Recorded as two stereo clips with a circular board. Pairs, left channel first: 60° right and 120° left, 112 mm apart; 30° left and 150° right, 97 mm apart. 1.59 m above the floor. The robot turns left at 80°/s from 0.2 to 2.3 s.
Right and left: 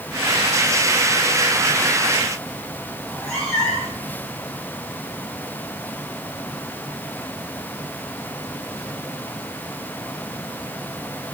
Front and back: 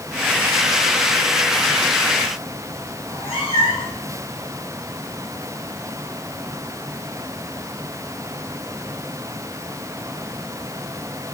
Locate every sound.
3.0 s a cat meowing: 20° left, 5.5 m